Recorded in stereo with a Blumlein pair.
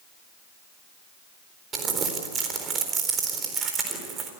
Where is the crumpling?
25° right, 4 m.